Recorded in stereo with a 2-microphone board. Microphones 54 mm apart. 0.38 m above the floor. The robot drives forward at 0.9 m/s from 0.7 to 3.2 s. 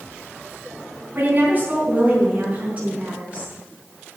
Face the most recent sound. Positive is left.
turn(degrees=-25)  # may be behind; listen again after turning